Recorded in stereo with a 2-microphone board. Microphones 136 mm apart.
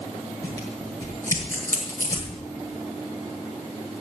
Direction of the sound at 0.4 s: 20° left (ahead or behind).